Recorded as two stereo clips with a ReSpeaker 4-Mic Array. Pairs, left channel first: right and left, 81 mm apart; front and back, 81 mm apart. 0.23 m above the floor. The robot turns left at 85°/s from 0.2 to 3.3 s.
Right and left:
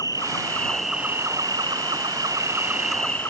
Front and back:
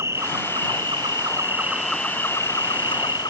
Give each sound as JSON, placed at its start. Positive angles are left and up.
{"t": 0.0, "sound": "an insect", "azimuth_deg": -125}